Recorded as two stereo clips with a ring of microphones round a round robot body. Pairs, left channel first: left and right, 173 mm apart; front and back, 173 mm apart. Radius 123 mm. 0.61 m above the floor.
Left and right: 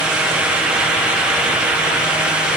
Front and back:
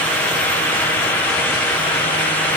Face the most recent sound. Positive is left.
No sound to turn to.